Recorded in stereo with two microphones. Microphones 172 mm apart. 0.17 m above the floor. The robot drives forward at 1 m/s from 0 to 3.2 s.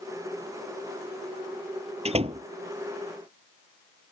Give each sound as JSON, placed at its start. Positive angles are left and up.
{"t": 2.0, "sound": "a door slam", "side_deg": -40}